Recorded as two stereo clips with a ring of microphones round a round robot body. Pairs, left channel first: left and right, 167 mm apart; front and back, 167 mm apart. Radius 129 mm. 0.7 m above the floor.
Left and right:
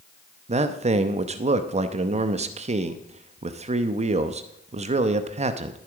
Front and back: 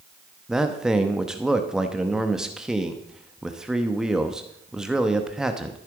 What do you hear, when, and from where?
0.5 s a man speaking: 95° right, 0.9 m